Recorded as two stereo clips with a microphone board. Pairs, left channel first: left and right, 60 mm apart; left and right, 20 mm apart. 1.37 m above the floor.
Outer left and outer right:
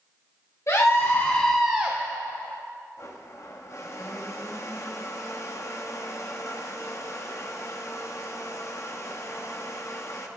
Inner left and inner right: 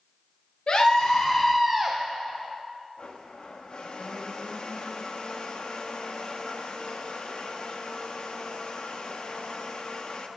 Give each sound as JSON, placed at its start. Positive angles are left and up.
{"t": 0.7, "sound": "a scream", "side_deg": 55, "distance_m": 1.4}
{"t": 3.0, "sound": "a blender", "side_deg": 50, "distance_m": 1.0}